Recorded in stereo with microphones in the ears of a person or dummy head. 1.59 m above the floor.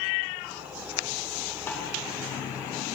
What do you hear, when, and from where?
1.7 s a snare drum: 10° left (ahead or behind), 2.5 m